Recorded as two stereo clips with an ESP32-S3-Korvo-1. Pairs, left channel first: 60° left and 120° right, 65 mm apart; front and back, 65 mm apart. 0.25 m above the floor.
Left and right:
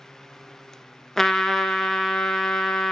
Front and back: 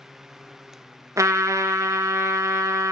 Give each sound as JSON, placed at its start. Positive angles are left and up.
{"t": 1.2, "sound": "a trumpet", "azimuth_deg": 145, "distance_m": 0.5}